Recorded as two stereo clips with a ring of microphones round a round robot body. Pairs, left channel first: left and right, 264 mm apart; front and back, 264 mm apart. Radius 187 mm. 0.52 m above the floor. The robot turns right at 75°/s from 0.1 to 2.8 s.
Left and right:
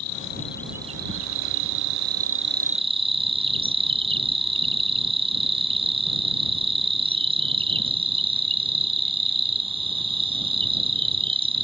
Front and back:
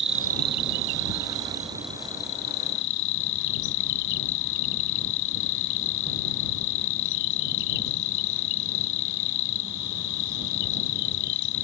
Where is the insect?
135° left; by 11.6 s 20° right.